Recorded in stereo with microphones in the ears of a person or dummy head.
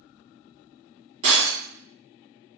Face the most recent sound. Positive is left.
turn(degrees=-40)  # may be behind; listen again after turning